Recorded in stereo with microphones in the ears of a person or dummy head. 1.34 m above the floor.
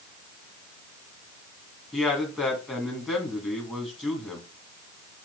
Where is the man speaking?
Centre (ahead or behind), 2 m.